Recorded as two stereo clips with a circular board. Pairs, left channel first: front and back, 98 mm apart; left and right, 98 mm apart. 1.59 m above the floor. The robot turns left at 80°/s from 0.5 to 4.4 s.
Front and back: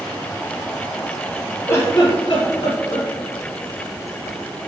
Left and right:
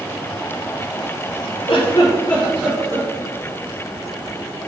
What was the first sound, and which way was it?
A giggle, 70° left.